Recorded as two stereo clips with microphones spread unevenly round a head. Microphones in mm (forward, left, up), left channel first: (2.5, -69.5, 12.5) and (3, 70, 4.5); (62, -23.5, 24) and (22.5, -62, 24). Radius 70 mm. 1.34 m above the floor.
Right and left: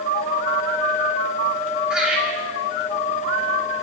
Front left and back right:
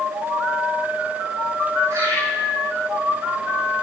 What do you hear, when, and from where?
1.9 s laughter: 175° left, 8 m